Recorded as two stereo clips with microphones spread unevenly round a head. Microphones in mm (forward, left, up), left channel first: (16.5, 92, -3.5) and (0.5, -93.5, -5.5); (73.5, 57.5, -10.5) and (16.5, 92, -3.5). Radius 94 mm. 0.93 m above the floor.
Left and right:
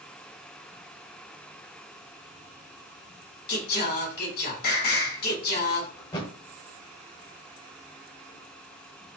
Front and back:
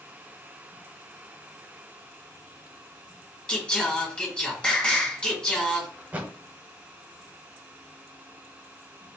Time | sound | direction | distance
3.5 | singing | 45° left | 1.8 m
6.0 | a thud | 130° left | 0.8 m